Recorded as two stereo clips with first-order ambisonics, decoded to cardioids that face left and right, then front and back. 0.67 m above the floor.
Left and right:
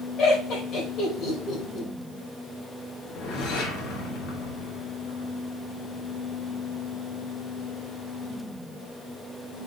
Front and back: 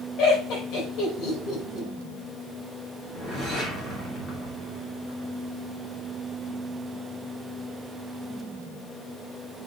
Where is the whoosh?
60° left, 2.5 m.